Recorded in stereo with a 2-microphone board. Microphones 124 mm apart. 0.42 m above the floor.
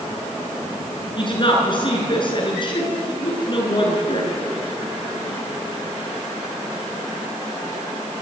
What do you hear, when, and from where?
1.2 s a woman speaking: 40° left (ahead or behind), 6 m